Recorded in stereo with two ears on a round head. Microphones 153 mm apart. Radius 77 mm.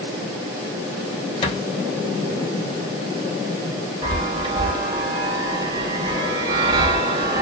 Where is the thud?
35° left (ahead or behind), 0.9 m.